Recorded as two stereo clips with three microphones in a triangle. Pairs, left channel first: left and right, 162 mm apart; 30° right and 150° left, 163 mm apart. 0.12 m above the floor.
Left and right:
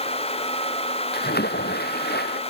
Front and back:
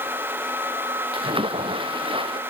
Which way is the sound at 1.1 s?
90° left.